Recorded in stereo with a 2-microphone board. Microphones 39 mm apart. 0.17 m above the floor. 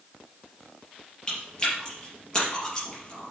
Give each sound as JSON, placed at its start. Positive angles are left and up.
{"t": 1.3, "sound": "chewing", "side_deg": 15, "distance_m": 4.0}